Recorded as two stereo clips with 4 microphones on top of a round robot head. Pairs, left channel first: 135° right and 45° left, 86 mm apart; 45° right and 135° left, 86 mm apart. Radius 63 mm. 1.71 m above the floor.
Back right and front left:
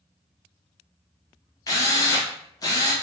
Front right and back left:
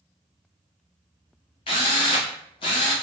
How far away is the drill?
About 0.6 m.